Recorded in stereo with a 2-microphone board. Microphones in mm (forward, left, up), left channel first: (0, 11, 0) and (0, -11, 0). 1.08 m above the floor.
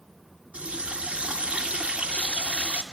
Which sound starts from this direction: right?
A running tap, at 0.5 s.